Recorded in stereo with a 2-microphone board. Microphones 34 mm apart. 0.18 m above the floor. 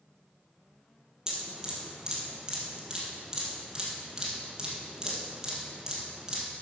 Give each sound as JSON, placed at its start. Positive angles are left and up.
{"t": 1.3, "sound": "dripping", "side_deg": -20, "distance_m": 3.5}